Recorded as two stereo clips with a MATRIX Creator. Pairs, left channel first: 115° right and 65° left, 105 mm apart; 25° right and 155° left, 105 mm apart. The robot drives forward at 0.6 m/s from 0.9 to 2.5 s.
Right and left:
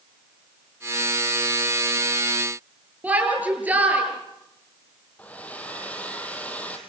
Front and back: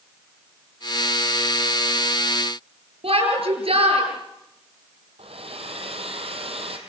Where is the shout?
140° left, 7.5 m.